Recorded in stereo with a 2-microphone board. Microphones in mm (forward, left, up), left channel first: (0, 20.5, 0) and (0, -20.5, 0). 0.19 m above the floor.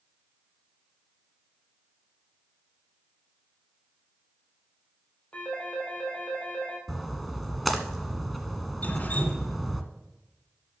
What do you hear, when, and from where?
5.3 s a phone ringing: 30° left (ahead or behind), 3 m
6.9 s a splash: centre (ahead or behind), 1.3 m
8.8 s dripping: 40° left (ahead or behind), 1.8 m